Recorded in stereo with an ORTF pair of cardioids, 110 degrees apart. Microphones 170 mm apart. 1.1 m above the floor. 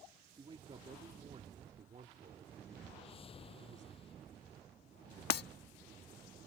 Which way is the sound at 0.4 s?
30° right.